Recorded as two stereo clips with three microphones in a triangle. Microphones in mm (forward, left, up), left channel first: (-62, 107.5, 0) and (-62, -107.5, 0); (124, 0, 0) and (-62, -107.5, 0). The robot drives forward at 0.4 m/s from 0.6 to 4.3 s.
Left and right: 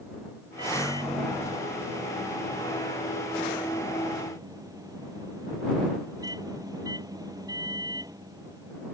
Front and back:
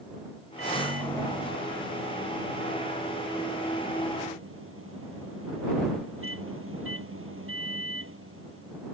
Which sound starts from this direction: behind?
A microwave, at 0.6 s.